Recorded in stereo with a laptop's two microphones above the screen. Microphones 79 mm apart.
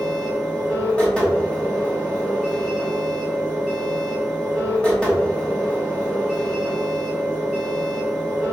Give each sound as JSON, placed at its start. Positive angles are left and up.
{"t": 0.0, "sound": "a machine running", "side_deg": 15, "distance_m": 1.2}